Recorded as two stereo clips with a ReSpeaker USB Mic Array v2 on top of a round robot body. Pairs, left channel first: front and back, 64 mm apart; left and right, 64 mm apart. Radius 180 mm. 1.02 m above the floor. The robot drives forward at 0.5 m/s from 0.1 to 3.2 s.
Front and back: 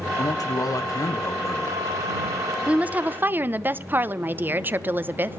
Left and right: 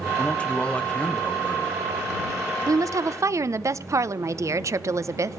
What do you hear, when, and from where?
0.2 s a man speaking: 15° left, 2 m; by 1.8 s 25° left, 1.5 m
2.7 s a woman speaking: 110° right, 1.1 m; by 5.4 s 125° right, 1.2 m